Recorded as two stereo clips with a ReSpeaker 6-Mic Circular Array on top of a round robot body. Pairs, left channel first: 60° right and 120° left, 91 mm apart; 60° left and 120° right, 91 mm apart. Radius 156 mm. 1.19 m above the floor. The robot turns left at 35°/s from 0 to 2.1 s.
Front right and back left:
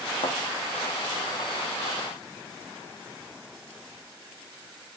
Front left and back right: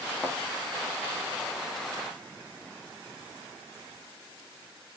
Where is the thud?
20° right, 0.9 m; by 0.4 s 25° right, 0.9 m.